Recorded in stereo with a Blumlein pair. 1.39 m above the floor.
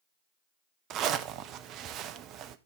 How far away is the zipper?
About 0.7 m.